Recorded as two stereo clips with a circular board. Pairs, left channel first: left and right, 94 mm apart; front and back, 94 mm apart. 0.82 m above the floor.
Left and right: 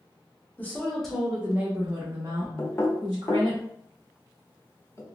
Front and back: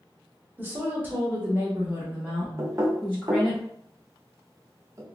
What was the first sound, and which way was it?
A woman speaking, 135° left.